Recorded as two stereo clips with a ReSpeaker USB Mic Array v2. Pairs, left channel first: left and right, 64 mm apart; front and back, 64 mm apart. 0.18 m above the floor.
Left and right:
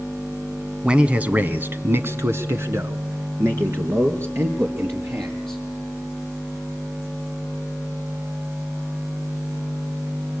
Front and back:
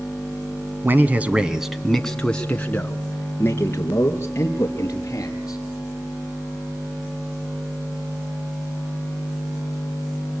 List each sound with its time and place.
0.8 s a man speaking: 155° right, 1.4 m; by 5.6 s 45° right, 4 m